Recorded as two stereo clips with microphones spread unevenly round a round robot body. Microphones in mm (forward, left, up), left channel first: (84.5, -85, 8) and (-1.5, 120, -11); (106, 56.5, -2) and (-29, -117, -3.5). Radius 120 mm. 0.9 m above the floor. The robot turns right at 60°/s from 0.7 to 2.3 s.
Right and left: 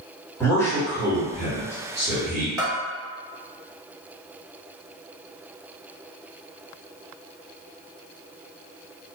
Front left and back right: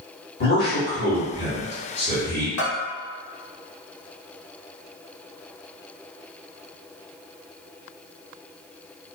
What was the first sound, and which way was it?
A man speaking, 15° left.